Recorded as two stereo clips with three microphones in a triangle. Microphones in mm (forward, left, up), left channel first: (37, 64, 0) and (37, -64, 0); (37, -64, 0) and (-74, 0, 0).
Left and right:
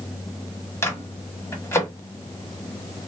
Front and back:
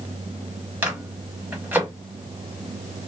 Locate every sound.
0.8 s a microwave: 100° left, 0.8 m